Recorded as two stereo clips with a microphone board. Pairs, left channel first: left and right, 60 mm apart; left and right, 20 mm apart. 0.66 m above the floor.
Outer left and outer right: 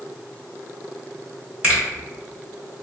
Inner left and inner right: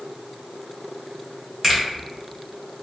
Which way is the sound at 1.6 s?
20° right (ahead or behind).